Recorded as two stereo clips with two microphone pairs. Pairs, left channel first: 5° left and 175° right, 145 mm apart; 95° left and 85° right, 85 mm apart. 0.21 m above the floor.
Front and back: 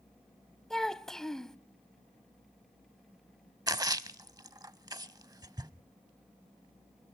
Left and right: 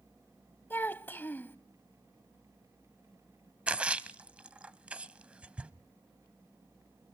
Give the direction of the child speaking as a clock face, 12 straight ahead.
9 o'clock.